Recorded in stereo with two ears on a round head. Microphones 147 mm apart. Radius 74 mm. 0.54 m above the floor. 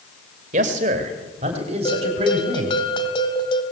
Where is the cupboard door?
No cupboard door in this recording.